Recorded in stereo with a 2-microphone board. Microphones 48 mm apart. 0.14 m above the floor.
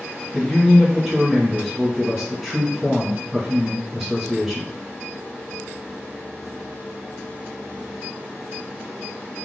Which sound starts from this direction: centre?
A man speaking, at 0.3 s.